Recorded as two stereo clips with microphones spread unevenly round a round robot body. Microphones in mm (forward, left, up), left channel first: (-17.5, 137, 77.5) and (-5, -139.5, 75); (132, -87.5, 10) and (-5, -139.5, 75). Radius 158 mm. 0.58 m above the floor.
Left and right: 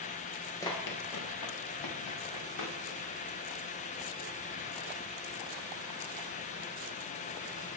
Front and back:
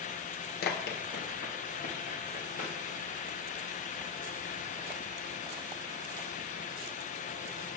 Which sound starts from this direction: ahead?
Running footsteps, at 0.6 s.